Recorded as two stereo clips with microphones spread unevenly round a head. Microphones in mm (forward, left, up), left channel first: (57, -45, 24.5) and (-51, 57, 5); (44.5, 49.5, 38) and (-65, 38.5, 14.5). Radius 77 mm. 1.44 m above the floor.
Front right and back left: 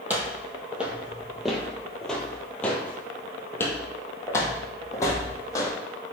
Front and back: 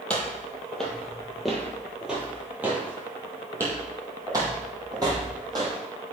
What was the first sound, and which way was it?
Footsteps, 55° left.